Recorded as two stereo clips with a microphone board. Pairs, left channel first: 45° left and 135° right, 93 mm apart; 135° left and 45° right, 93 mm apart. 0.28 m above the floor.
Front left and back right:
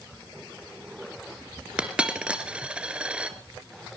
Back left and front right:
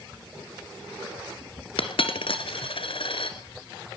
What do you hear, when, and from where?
1.8 s a dropped coin: 145° left, 1.6 m